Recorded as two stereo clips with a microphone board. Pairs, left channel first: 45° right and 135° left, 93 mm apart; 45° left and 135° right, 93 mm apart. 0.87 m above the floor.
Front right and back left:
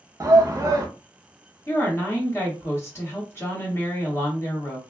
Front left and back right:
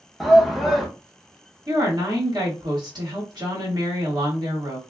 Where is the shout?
135° left, 0.7 m.